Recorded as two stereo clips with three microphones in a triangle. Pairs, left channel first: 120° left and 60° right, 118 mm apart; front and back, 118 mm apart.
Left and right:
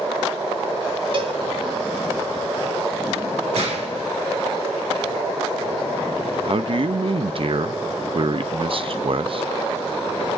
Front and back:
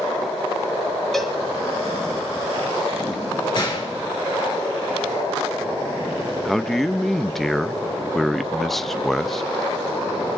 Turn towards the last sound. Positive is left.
turn(degrees=-90)